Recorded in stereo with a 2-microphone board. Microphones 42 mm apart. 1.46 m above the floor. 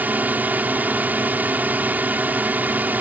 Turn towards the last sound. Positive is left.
turn(degrees=-40)  # may be behind; listen again after turning